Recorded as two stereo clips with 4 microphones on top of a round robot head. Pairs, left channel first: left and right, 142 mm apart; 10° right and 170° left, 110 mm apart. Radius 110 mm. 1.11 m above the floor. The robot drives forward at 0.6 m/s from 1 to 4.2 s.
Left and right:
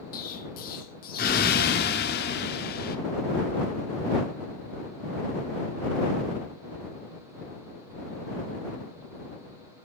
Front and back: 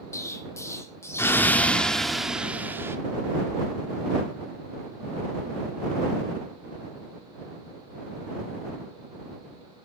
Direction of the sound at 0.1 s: 55° left.